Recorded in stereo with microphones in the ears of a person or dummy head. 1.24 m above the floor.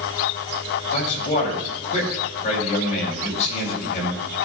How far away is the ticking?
I don't hear ticking.